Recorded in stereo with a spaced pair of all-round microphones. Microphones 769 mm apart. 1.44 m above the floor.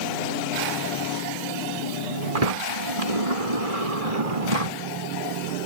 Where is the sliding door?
50° right (ahead or behind).